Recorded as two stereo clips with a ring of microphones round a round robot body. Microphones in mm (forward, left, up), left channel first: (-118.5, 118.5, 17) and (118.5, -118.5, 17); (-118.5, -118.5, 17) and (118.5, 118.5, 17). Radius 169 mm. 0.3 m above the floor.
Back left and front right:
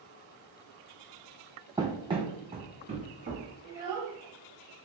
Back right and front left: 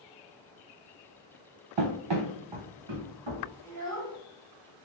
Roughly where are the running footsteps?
Ahead left.